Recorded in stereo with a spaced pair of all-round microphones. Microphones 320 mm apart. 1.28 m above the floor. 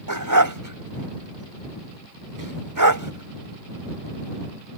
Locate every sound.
0.1 s a dog barking: 75° right (ahead or behind)